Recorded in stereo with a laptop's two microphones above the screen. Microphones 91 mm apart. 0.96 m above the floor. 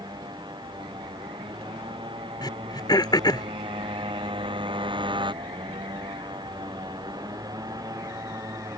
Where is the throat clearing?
55° left (ahead or behind).